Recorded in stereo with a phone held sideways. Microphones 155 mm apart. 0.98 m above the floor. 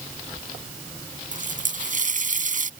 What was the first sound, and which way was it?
A running tap, 60° right (ahead or behind).